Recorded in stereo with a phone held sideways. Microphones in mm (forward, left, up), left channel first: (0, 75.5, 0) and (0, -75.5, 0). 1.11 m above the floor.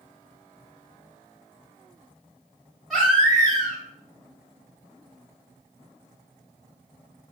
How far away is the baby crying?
About 1.3 m.